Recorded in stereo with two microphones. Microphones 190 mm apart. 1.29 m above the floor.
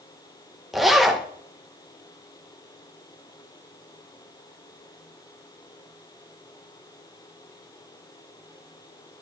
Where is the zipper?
Centre (ahead or behind), 0.9 m.